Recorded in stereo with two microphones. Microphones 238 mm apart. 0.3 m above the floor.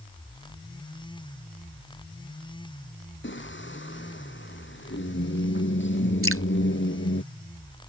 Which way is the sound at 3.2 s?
55° left (ahead or behind).